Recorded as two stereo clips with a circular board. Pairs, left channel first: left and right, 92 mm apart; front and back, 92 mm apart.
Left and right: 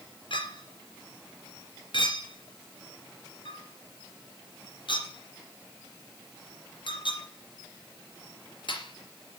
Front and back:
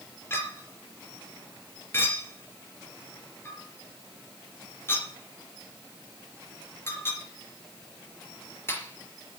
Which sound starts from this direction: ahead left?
A clink, at 0.3 s.